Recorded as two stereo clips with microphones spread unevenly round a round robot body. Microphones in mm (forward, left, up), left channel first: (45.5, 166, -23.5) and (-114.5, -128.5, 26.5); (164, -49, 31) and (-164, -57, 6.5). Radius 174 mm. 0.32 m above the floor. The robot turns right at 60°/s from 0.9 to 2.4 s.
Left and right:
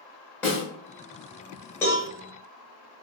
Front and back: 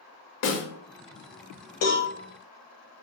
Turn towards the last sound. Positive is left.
turn(degrees=30)